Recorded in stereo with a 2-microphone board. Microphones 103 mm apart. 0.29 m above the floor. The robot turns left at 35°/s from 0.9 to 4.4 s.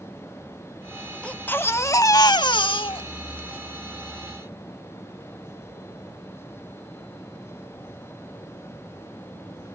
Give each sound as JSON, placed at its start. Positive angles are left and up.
{"t": 1.2, "sound": "a baby crying", "azimuth_deg": 170, "distance_m": 0.5}